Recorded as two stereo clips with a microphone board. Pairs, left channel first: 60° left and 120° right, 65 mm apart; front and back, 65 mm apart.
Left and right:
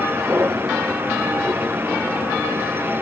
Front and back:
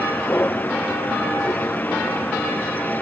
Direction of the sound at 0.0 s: 60° right.